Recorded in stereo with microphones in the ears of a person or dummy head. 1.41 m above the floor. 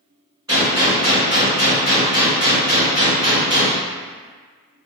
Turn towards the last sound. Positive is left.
turn(degrees=-15)  # may be behind; listen again after turning